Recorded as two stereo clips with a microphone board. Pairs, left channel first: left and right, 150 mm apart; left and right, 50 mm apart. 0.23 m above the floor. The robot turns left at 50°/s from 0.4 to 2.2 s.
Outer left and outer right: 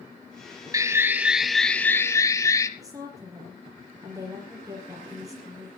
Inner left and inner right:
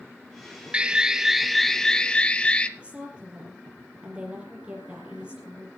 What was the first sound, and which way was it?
An alarm, 140° right.